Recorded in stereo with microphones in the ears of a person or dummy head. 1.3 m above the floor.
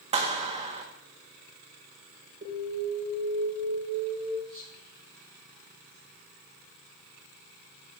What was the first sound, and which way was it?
A clap, 35° right (ahead or behind).